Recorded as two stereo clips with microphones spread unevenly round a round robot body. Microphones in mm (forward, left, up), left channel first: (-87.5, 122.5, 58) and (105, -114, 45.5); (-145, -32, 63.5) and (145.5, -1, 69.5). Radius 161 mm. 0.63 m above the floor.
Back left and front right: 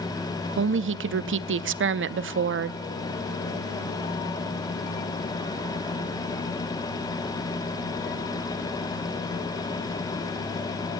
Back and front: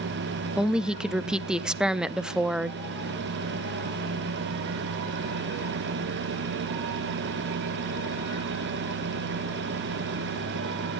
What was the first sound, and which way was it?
A woman speaking, 80° right.